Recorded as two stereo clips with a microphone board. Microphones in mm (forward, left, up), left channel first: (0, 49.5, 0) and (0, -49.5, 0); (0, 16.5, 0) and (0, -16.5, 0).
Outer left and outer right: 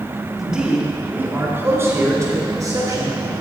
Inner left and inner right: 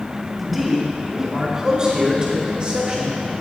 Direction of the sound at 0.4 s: 5° right (ahead or behind).